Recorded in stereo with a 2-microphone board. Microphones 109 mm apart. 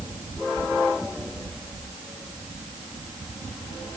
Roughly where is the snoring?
I don't hear snoring.